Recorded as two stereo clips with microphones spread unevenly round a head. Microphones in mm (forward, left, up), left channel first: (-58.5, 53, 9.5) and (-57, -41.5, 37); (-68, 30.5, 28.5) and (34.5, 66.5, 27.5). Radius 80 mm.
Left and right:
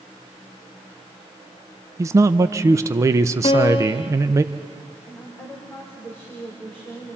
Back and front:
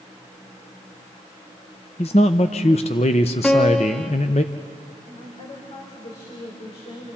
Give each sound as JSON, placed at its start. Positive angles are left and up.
{"t": 2.0, "sound": "a man speaking", "azimuth_deg": -120, "distance_m": 0.6}
{"t": 3.4, "sound": "a piano", "azimuth_deg": 115, "distance_m": 1.1}
{"t": 5.1, "sound": "a woman speaking", "azimuth_deg": 170, "distance_m": 4.5}